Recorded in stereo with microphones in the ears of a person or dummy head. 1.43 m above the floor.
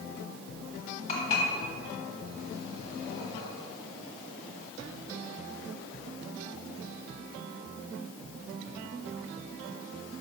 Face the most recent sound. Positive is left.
turn(degrees=45)  # may be behind; listen again after turning